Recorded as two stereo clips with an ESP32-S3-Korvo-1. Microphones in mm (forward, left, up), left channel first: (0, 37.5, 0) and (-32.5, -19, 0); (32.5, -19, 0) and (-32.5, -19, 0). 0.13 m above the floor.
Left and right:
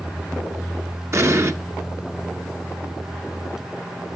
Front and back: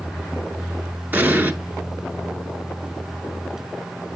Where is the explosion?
130° right, 1.4 m.